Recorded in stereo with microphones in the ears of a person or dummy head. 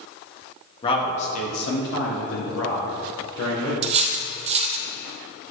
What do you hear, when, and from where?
0.8 s a man speaking: 25° left (ahead or behind), 1.6 m; by 3.7 s 65° left (ahead or behind), 2.5 m
3.8 s cutlery clinking: 40° right (ahead or behind), 0.7 m